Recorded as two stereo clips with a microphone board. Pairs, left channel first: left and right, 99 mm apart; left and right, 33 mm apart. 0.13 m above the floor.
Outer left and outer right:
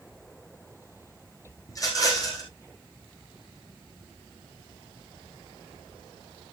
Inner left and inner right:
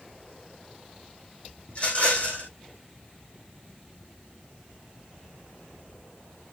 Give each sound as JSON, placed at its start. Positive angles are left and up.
{"t": 1.7, "sound": "a rattle", "side_deg": 35, "distance_m": 5.5}